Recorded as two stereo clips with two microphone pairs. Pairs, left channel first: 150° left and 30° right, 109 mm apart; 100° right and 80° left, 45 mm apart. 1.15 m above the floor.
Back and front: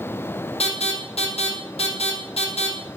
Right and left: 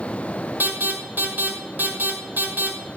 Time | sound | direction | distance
0.6 | an alarm | 125° left | 6.5 m